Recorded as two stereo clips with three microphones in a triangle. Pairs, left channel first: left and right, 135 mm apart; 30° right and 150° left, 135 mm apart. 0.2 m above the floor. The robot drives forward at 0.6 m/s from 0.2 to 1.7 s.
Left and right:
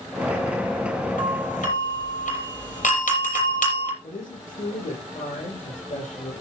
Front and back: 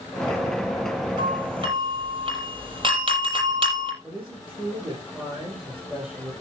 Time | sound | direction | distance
1.2 | a doorbell | 100° left | 7.5 m
4.0 | a man speaking | 60° left | 7.5 m